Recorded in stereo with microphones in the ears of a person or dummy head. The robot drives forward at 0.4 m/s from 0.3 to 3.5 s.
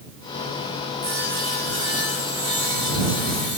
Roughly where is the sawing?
Right.